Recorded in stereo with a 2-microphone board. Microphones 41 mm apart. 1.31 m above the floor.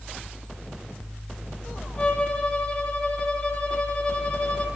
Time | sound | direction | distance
2.0 | a violin | 25° left (ahead or behind) | 5 m